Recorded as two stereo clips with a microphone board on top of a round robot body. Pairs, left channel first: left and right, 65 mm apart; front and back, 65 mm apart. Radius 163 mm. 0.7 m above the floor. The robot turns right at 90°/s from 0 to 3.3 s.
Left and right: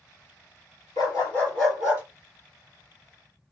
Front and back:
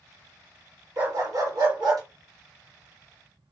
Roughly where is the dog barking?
Behind left.